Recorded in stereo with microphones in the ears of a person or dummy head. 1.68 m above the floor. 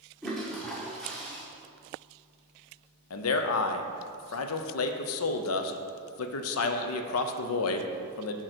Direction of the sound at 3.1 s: 80° left.